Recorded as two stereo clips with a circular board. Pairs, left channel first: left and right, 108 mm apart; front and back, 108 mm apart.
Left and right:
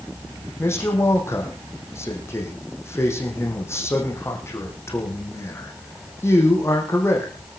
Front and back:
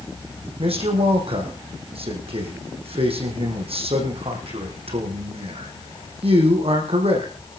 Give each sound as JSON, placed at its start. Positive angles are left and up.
{"t": 0.6, "sound": "a man speaking", "azimuth_deg": 155, "distance_m": 5.0}